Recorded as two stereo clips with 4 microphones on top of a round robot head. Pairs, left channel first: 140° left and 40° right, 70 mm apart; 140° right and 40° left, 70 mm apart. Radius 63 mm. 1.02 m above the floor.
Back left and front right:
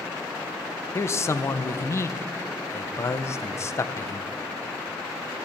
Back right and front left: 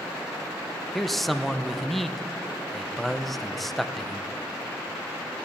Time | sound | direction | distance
0.9 | a man speaking | 135° left | 0.5 m